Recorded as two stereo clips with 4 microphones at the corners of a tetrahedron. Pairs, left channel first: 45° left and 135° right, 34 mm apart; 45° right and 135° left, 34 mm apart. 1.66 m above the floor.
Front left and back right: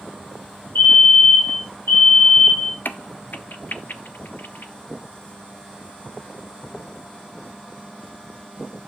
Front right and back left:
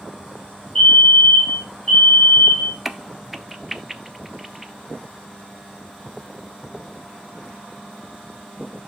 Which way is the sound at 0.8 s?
35° left.